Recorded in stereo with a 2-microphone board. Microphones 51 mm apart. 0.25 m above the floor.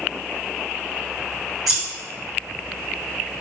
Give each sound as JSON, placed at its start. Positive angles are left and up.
{"t": 1.7, "sound": "scissors", "side_deg": -5, "distance_m": 1.7}